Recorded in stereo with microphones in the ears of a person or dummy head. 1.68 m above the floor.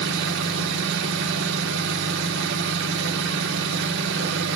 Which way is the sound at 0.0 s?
70° right (ahead or behind).